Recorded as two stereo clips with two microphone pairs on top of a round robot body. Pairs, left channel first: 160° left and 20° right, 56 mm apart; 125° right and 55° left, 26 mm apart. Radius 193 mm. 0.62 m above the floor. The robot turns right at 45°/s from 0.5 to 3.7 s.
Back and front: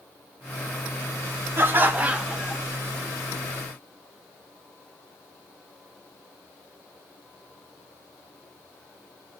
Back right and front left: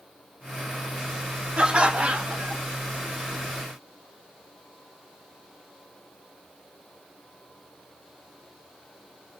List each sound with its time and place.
1.6 s laughter: 20° left, 0.8 m; by 2.6 s 65° left, 0.8 m